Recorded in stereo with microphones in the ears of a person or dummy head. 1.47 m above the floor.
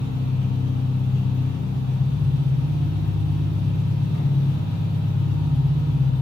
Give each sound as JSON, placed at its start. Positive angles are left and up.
{"t": 0.0, "sound": "an engine running", "side_deg": -20, "distance_m": 1.3}